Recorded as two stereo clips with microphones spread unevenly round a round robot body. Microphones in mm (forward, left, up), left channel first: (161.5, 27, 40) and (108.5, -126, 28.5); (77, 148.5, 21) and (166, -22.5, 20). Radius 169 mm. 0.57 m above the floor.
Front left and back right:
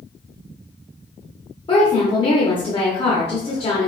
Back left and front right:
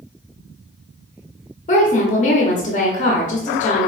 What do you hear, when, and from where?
1.7 s a woman speaking: 115° left, 0.8 m